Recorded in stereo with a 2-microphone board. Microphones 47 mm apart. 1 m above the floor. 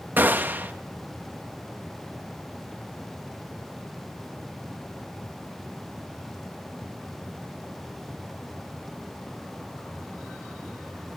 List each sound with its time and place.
0.2 s a gunshot: 40° right (ahead or behind), 1.4 m